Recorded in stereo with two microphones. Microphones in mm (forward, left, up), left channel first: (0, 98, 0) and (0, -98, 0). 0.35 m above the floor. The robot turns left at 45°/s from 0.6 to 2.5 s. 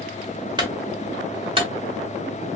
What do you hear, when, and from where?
0.6 s a clunk: 20° right (ahead or behind), 1.4 m; by 1.7 s 25° right (ahead or behind), 1.4 m